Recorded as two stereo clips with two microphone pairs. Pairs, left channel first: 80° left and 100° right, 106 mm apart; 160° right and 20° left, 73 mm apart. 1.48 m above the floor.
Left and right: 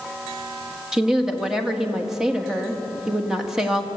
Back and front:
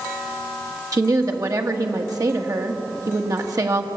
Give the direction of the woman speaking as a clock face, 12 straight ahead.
1 o'clock.